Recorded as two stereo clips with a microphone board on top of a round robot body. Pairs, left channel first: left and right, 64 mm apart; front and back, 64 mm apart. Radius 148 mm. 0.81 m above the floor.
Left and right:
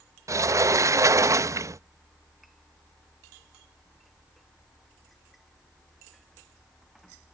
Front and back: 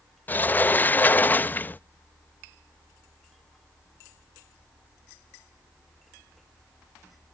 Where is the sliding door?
60° right.